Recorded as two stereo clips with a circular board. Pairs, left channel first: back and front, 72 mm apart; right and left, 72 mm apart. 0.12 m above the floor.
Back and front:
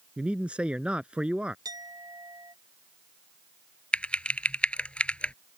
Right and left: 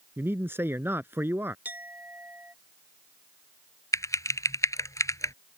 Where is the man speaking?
60° left.